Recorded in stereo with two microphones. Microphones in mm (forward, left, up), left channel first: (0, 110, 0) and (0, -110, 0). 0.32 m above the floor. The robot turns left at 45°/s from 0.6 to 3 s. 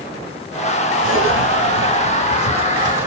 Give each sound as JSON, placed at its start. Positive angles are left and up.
{"t": 1.0, "sound": "a zipper", "side_deg": -65, "distance_m": 2.5}